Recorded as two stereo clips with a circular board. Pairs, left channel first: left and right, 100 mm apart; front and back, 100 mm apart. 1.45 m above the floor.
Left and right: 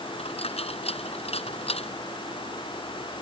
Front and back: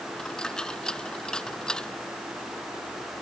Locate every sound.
0.2 s a dropped coin: 80° left